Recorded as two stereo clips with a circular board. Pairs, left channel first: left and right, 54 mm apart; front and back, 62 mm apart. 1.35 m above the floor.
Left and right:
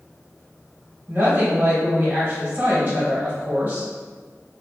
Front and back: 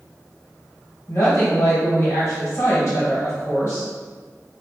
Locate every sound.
1.1 s a woman speaking: 35° right, 1.1 m